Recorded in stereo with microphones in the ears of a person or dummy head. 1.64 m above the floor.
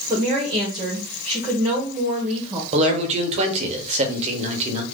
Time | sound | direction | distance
0.1 | a woman speaking | 20° right (ahead or behind) | 1.1 m
2.7 | a man speaking | 35° right (ahead or behind) | 0.9 m